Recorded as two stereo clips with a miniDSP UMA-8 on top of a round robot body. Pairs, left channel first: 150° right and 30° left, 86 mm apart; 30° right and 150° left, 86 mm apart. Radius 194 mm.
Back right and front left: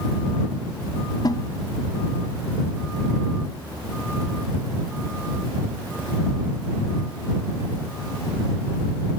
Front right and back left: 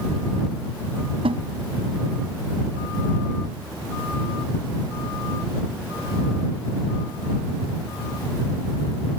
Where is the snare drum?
165° left.